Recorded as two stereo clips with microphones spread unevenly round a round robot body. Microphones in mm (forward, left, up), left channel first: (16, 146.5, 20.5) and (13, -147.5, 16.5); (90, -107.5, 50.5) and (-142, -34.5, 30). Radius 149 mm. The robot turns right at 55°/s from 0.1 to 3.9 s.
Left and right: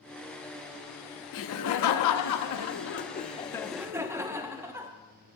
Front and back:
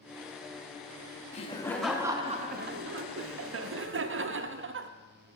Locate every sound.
1.3 s laughter: 45° left, 0.9 m; by 4.9 s 170° right, 0.9 m